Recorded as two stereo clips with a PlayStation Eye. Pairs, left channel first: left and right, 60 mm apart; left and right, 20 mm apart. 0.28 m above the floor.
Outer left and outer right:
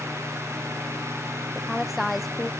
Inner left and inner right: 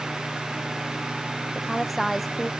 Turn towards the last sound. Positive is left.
turn(degrees=-5)  # may be behind; listen again after turning